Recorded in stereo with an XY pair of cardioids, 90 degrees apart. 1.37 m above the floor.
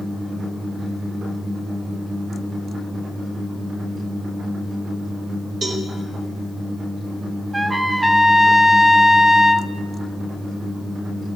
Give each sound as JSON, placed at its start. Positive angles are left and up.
{"t": 5.6, "sound": "a cowbell", "azimuth_deg": -55, "distance_m": 2.0}
{"t": 7.5, "sound": "a trumpet", "azimuth_deg": -15, "distance_m": 0.5}